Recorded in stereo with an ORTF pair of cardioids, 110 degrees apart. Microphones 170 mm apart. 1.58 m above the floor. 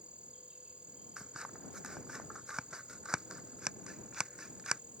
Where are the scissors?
5° right.